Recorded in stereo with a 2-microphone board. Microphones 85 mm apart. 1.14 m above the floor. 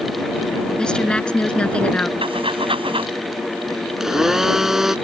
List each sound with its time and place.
0.8 s a woman speaking: 10° left (ahead or behind); by 2.1 s 15° left (ahead or behind)
2.2 s breathing: 80° right
4.0 s a blender: 5° right (ahead or behind)